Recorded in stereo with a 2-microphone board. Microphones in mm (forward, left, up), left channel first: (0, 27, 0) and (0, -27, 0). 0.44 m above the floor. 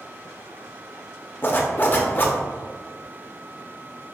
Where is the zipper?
40° left (ahead or behind), 0.6 m.